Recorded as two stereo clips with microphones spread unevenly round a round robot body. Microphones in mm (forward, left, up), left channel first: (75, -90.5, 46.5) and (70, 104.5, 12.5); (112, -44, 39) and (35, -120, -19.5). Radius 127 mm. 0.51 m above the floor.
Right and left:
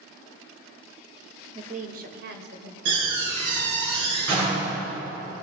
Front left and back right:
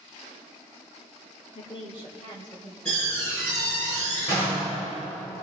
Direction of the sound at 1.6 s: 115° left.